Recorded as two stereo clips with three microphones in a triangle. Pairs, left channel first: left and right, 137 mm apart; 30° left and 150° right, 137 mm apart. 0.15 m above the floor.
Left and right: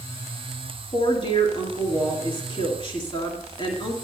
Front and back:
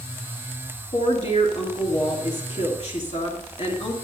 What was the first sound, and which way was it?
A woman speaking, 50° left.